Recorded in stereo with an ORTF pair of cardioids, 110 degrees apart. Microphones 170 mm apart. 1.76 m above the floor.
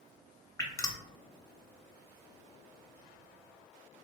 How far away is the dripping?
About 0.8 m.